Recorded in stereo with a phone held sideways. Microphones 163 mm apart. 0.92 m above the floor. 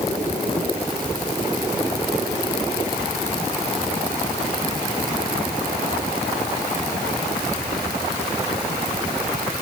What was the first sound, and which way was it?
Only background noise.